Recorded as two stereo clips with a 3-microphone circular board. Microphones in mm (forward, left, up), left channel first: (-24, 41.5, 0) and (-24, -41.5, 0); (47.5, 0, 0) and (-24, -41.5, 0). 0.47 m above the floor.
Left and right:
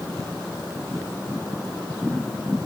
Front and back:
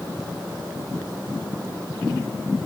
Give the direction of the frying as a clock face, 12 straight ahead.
I don't hear frying.